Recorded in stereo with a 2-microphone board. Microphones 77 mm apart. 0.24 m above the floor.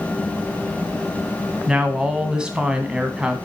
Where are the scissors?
No scissors in this recording.